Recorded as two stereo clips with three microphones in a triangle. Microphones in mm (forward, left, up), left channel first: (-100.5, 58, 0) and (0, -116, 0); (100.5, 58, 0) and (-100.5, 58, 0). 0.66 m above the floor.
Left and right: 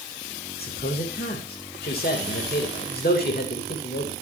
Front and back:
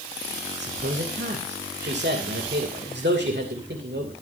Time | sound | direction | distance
0.6 | a man speaking | 155° left | 2.5 m